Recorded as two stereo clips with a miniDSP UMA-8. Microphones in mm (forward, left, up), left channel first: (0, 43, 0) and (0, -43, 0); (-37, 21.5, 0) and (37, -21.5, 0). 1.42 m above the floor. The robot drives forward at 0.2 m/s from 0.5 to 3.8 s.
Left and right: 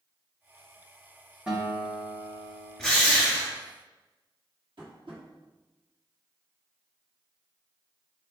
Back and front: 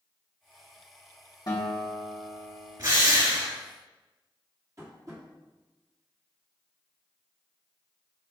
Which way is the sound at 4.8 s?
75° right.